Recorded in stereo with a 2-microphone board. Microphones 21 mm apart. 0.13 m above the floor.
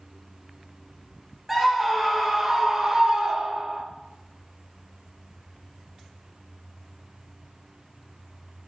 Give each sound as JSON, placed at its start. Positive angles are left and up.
{"t": 1.5, "sound": "a scream", "side_deg": -5, "distance_m": 3.0}